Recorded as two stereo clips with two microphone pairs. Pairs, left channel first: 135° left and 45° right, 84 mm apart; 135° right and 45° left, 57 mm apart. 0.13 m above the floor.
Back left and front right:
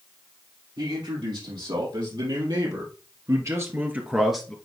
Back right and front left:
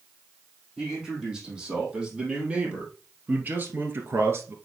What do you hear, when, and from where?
0.8 s a man speaking: 35° right, 5.5 m; by 4.5 s 55° left, 1.9 m